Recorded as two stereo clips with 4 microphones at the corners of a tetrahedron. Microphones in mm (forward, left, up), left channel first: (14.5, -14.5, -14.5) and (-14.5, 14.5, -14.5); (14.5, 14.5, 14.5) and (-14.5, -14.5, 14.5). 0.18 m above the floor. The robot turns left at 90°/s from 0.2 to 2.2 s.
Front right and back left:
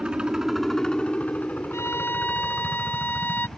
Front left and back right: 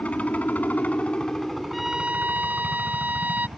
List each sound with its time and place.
0.0 s a helicopter: 80° left; by 3.6 s 100° right
1.7 s a violin: 45° right; by 3.5 s 85° right